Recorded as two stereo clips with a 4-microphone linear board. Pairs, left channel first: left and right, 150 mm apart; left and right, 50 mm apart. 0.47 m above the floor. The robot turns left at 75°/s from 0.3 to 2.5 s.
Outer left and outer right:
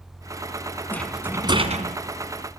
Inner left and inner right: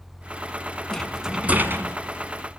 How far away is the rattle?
About 2 m.